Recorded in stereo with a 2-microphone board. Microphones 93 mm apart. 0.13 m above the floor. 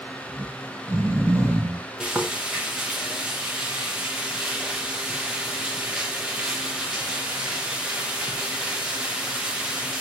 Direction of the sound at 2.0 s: 10° right (ahead or behind).